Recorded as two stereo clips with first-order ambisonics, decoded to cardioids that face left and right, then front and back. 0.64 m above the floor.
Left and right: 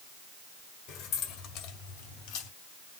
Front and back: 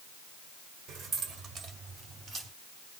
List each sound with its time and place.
0.9 s keys jangling: 125° left, 1.4 m; by 2.5 s 110° left, 3 m